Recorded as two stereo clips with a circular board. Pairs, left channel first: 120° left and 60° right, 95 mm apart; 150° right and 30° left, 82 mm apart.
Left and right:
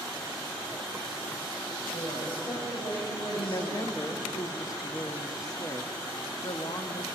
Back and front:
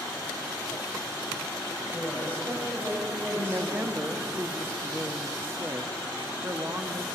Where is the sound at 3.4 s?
85° left, 0.9 m.